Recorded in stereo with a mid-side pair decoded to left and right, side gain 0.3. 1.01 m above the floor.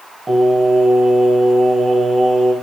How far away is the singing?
About 4 m.